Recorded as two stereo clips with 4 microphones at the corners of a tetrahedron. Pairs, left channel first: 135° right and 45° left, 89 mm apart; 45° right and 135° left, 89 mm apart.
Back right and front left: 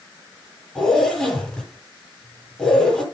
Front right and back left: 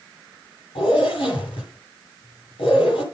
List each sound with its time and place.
0.8 s a zipper: 50° right, 9.5 m